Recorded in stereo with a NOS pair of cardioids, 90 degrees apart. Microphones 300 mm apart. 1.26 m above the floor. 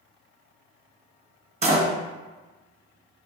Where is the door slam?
20° right, 1.2 m.